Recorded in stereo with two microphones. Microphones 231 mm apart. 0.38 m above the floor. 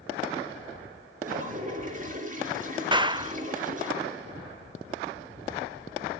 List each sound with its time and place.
1.2 s a toilet flushing: 35° right (ahead or behind), 5 m
2.9 s a clap: 20° right (ahead or behind), 0.7 m